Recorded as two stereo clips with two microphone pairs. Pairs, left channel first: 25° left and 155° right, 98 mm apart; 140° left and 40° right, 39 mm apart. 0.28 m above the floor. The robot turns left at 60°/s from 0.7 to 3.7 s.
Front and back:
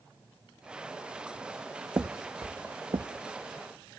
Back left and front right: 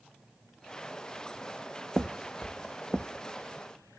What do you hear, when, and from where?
2.0 s footsteps: 100° right, 0.6 m; by 3.0 s 135° right, 1.0 m